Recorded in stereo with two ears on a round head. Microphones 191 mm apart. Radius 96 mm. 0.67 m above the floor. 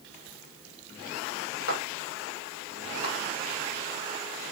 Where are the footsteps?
75° left (ahead or behind), 9.5 m; by 3.1 s 80° left, 11 m.